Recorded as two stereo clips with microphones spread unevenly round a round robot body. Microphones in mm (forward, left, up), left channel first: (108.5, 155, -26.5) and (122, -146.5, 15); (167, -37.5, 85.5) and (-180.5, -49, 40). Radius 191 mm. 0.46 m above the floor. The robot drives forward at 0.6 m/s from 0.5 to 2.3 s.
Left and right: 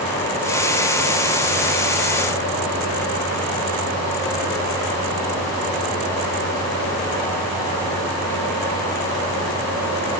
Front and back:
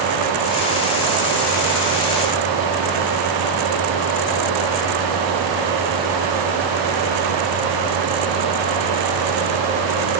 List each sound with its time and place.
Only background noise.